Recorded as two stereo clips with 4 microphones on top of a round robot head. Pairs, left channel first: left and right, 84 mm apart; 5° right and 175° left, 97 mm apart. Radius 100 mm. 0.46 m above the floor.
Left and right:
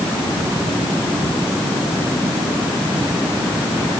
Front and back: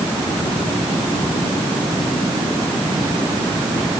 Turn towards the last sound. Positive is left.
No sound to turn to.